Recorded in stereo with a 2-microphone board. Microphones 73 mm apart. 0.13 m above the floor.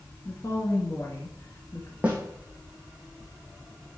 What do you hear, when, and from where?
0.2 s a woman speaking: 40° left (ahead or behind), 1.6 m
2.0 s a snare drum: 15° right (ahead or behind), 2 m